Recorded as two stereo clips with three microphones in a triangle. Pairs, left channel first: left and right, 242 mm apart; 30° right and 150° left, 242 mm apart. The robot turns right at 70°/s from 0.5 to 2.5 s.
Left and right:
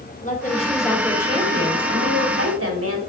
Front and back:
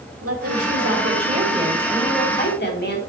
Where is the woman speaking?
145° left, 2 m; by 3.0 s 75° right, 2 m.